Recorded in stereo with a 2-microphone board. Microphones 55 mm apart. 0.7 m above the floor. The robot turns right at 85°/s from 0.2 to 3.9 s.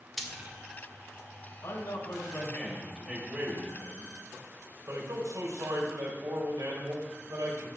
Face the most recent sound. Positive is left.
turn(degrees=-90)